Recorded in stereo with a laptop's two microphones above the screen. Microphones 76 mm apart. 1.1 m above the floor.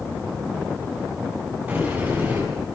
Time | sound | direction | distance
1.7 | a sliding door | 25° right (ahead or behind) | 10 m